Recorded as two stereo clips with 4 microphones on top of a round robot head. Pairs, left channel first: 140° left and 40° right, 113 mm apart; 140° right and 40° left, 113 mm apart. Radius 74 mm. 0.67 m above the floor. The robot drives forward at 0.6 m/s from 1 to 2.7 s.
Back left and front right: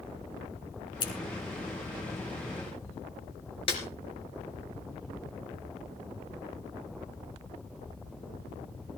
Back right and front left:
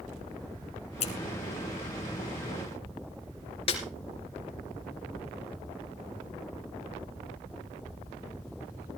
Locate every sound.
1.0 s scissors: 170° right, 2.5 m
3.7 s a snare drum: straight behind, 3 m